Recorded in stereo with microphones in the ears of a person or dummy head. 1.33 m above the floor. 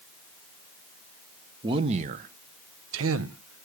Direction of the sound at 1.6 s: 25° right (ahead or behind).